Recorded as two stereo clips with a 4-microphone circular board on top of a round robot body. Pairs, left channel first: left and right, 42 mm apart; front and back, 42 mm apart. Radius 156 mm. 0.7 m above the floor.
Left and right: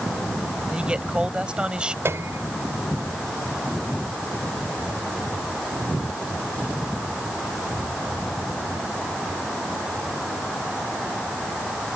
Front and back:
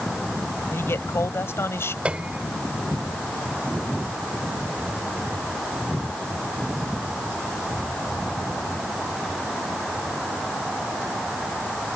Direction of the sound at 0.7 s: 20° right.